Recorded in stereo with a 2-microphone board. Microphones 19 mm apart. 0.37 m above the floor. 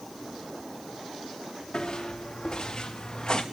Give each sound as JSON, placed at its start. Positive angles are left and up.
{"t": 1.7, "sound": "footsteps", "side_deg": 30, "distance_m": 4.0}